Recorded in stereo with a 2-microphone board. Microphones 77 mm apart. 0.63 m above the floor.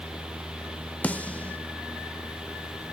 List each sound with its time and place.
1.0 s a snare drum: 20° left (ahead or behind), 0.9 m